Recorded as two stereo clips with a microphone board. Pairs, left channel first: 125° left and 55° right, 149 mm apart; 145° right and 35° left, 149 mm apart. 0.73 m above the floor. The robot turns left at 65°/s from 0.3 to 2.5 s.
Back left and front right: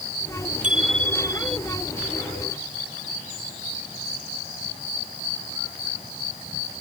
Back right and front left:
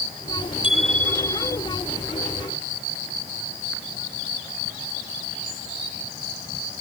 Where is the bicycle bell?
90° right; by 1.6 s 150° right.